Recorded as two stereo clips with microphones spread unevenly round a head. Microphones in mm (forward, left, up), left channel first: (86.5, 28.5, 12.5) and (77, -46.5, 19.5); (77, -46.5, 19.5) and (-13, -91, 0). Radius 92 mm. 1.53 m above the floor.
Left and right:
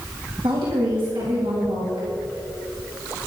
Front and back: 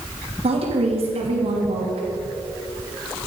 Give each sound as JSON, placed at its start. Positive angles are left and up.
{"t": 0.4, "sound": "a woman speaking", "azimuth_deg": -140, "distance_m": 3.5}